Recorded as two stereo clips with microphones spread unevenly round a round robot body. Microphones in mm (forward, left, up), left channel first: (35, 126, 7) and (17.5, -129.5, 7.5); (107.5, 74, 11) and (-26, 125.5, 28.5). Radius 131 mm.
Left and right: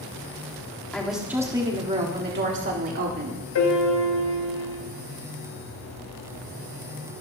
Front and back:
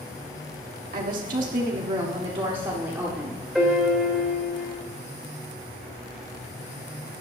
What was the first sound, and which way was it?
A woman speaking, 170° left.